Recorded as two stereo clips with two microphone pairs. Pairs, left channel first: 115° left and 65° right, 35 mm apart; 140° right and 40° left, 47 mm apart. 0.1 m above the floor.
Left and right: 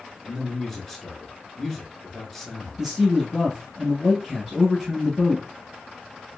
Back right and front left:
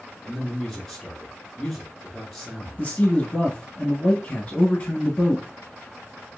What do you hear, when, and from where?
0.2 s a man speaking: 145° left, 1.1 m
2.8 s a man speaking: 145° right, 1.2 m